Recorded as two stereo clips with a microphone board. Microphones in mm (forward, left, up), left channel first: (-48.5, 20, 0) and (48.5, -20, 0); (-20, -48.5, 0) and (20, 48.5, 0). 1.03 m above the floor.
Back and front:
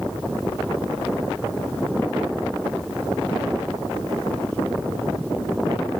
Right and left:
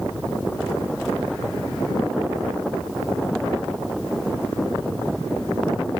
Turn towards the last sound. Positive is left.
No sound to turn to.